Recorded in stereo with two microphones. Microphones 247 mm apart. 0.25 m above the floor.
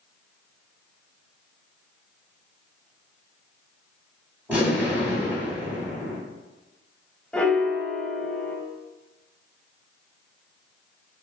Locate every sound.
4.5 s an explosion: 5° right (ahead or behind), 2.0 m
7.3 s a piano: 5° left (ahead or behind), 0.8 m